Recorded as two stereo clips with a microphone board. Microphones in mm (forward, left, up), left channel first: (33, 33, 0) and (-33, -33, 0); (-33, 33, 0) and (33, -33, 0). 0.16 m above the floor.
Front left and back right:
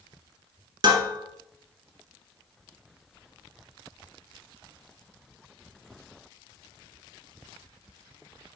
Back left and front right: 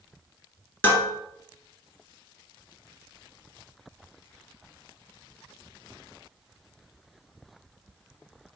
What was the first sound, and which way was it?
Dishes clattering, 165° right.